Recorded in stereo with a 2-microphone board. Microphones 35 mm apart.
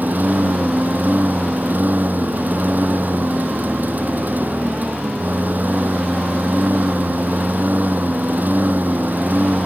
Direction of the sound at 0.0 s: 60° right (ahead or behind).